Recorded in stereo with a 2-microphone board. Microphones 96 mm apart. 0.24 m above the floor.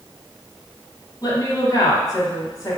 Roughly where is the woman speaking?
Left.